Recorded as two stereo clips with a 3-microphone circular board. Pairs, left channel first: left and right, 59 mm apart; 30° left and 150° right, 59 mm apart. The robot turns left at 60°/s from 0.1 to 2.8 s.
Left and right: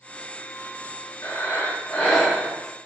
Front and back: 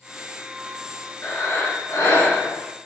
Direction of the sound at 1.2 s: 70° left.